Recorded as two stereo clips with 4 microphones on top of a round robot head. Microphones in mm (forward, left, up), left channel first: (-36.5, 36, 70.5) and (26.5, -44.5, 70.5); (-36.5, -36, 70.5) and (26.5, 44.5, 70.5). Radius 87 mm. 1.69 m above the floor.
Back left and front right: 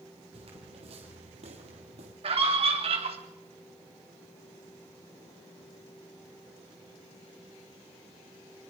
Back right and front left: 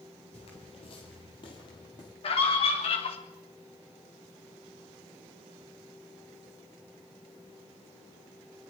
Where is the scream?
90° right, 3.5 m.